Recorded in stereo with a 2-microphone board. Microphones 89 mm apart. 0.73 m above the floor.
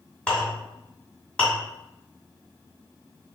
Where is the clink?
15° left (ahead or behind), 2.0 m.